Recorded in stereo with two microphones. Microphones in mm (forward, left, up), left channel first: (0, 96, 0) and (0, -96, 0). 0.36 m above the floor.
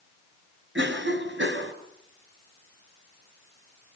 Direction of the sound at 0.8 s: 75° right (ahead or behind).